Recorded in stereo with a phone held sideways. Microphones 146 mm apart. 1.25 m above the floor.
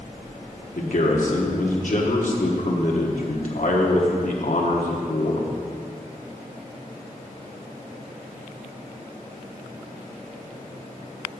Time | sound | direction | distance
0.8 | a man speaking | 60° left (ahead or behind) | 1.3 m